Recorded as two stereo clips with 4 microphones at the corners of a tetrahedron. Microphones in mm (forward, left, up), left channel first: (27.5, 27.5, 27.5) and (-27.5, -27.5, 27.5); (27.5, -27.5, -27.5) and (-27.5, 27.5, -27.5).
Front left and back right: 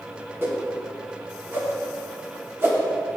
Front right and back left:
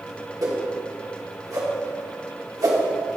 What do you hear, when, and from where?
0.4 s a whoosh: 170° left, 1.2 m